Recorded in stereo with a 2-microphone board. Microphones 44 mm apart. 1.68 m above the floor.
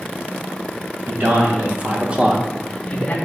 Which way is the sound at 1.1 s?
45° right (ahead or behind).